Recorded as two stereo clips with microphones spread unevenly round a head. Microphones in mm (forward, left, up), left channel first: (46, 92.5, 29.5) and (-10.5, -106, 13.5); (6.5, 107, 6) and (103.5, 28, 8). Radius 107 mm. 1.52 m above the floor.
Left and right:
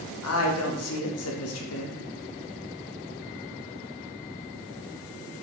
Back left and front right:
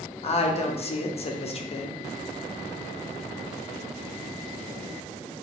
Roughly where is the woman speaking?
Left.